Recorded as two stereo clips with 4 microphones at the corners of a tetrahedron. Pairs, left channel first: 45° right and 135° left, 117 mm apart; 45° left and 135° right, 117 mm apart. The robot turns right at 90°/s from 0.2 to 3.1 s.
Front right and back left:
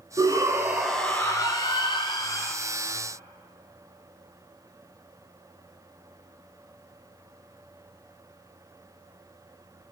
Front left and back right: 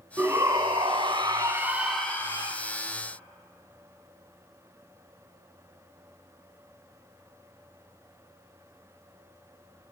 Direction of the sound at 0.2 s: 160° left.